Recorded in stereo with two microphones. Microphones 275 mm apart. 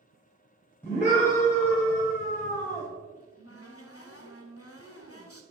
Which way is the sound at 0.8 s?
5° left (ahead or behind).